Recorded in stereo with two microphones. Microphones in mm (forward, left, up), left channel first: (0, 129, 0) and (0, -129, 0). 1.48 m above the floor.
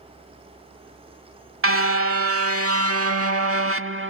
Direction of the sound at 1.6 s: 55° right (ahead or behind).